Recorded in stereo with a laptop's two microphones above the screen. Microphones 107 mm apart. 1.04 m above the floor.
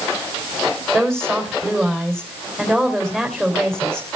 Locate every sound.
0.9 s a woman speaking: 5° left (ahead or behind), 3.5 m